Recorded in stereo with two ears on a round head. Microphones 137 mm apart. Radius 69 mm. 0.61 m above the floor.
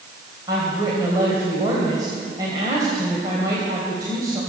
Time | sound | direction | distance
0.5 | a woman speaking | 25° right (ahead or behind) | 3 m